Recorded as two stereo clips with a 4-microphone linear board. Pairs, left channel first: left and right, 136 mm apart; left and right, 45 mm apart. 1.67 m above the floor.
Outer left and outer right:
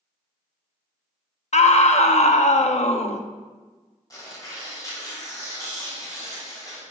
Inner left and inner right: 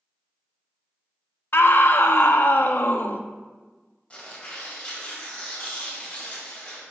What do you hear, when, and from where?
1.5 s a scream: 55° left (ahead or behind), 0.6 m
4.1 s tearing paper: 25° left (ahead or behind), 2.5 m